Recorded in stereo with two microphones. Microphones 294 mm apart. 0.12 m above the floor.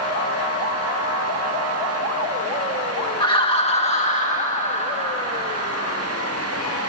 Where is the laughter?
15° left (ahead or behind), 1.5 m; by 6.1 s 20° left (ahead or behind), 4 m.